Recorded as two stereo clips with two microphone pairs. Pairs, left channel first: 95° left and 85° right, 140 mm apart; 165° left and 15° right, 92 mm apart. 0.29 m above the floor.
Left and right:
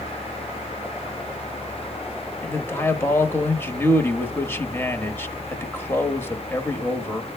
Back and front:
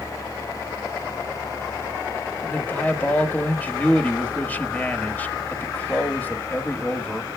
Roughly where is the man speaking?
Behind left.